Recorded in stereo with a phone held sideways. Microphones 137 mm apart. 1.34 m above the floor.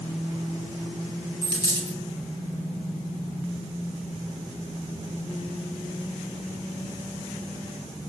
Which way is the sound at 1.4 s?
30° left (ahead or behind).